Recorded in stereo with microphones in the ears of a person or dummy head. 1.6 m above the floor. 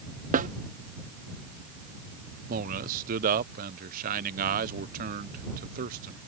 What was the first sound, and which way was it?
A snare drum, 45° right (ahead or behind).